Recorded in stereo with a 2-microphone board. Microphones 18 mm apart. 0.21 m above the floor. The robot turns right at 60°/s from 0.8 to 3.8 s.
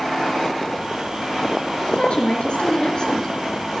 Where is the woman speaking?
60° left, 3.5 m; by 3.3 s 150° left, 3.5 m.